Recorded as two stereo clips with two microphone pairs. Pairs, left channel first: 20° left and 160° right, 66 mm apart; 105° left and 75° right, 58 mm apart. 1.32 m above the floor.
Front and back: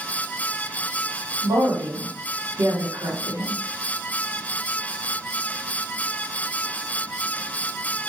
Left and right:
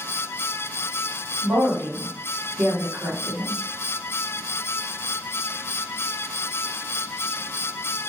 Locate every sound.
1.4 s a woman speaking: 130° right, 1.2 m